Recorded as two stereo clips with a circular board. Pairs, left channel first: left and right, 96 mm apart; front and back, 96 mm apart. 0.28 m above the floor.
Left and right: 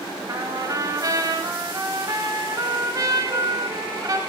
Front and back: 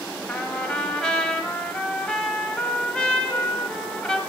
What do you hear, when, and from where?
0.3 s a trumpet: 75° right, 1.1 m